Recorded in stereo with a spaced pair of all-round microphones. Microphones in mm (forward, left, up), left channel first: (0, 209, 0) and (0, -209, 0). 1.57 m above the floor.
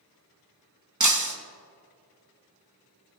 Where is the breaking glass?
45° right (ahead or behind), 1.0 m.